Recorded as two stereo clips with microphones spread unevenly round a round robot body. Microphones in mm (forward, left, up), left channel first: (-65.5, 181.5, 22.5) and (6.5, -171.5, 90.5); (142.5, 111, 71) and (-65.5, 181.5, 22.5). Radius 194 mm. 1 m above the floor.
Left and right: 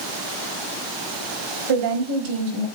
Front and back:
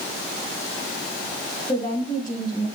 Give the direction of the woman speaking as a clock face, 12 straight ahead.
3 o'clock.